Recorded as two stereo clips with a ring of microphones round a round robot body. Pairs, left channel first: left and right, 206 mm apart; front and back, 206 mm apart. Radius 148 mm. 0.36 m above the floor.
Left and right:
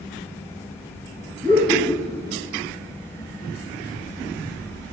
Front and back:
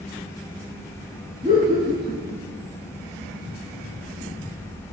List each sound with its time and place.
1.4 s laughter: 130° right, 1.1 m